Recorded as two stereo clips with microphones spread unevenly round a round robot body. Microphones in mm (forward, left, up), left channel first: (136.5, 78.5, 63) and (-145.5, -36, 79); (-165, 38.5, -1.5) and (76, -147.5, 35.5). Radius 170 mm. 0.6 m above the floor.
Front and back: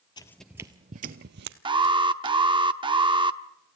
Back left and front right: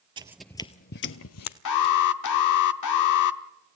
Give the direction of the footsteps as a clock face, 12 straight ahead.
1 o'clock.